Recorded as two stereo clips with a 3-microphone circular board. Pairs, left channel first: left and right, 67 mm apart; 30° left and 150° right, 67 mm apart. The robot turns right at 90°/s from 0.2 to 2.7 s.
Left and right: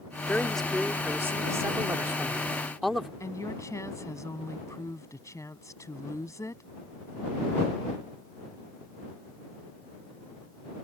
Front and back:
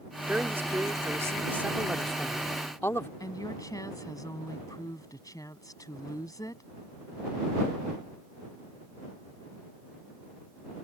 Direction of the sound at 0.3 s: 145° left.